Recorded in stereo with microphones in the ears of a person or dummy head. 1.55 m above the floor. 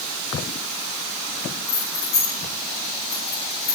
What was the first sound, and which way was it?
Keys jangling, 85° left.